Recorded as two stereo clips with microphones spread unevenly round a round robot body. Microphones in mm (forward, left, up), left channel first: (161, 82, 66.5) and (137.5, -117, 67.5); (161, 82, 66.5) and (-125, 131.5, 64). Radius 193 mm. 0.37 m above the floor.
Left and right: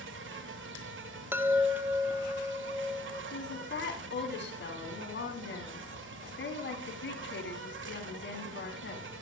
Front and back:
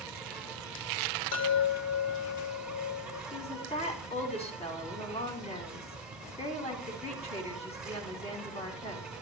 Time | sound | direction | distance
0.0 | an insect | 105° right | 1.0 m
1.3 | a chime | 15° right | 0.8 m
3.3 | a woman speaking | 60° left | 3.5 m